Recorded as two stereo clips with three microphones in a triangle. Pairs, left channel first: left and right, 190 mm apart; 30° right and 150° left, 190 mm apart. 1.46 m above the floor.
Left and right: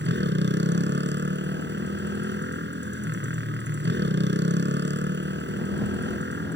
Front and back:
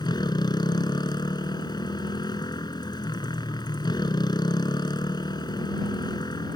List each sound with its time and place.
0.0 s a motorcycle: 100° right